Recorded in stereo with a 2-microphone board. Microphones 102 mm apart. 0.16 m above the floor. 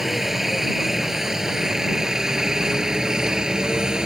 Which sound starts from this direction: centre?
A helicopter, at 0.0 s.